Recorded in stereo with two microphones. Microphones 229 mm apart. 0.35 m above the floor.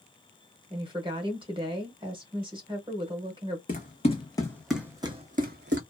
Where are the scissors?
No scissors in this recording.